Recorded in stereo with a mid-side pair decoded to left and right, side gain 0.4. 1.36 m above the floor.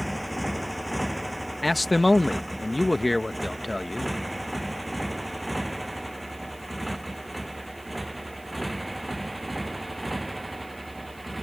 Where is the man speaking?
10° left.